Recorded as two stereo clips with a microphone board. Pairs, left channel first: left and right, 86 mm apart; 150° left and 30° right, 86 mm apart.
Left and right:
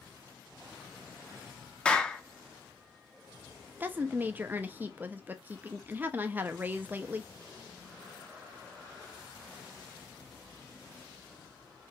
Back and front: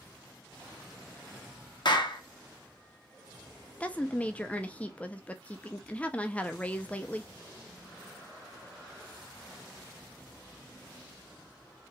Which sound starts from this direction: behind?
A clap, at 1.9 s.